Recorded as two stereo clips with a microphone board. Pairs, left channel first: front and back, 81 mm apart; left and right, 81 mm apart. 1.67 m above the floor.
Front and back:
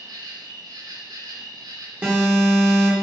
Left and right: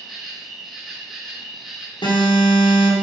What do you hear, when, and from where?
0.0 s an insect: 175° right, 1.4 m
2.0 s an alarm: 110° left, 2 m